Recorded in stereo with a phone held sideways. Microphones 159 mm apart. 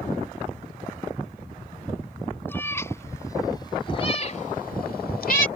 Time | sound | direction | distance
2.5 | a cat meowing | 15° left (ahead or behind) | ?